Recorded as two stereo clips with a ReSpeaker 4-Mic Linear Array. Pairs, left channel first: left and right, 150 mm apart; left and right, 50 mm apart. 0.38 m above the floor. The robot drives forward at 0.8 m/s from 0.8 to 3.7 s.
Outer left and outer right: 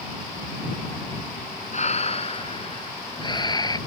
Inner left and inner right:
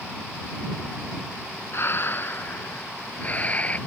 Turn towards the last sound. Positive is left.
turn(degrees=25)  # may be behind; listen again after turning